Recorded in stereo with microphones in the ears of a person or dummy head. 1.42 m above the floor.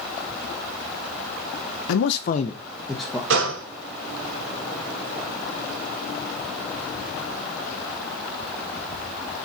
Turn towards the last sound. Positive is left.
turn(degrees=-70)  # may be behind; listen again after turning